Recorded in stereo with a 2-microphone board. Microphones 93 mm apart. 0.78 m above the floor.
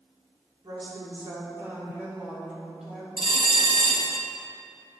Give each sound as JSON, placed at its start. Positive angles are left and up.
{"t": 0.6, "sound": "a woman speaking", "side_deg": -50, "distance_m": 2.5}
{"t": 3.2, "sound": "a bell", "side_deg": -55, "distance_m": 0.9}